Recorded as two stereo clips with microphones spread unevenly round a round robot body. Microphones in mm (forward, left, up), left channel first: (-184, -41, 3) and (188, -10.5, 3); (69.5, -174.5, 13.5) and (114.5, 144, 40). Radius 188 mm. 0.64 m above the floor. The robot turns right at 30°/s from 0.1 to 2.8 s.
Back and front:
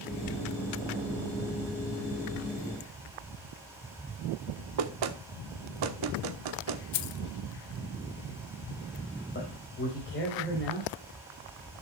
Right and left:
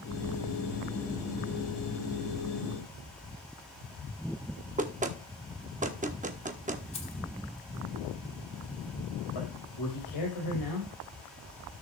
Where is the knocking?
15° left, 1.3 m.